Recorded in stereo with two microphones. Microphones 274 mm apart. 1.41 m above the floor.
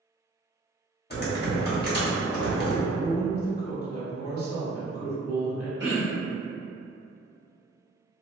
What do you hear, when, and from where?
1.1 s typing on a keyboard: 35° left (ahead or behind), 0.8 m
2.9 s a woman speaking: 55° right (ahead or behind), 1.2 m
5.8 s throat clearing: 40° right (ahead or behind), 0.9 m